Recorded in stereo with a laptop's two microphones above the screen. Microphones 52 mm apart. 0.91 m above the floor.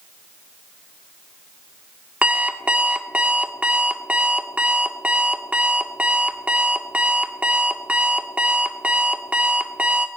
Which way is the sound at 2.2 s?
25° right (ahead or behind).